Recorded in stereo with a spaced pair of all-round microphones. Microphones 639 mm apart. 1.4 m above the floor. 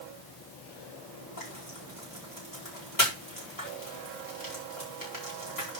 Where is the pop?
I don't hear a pop.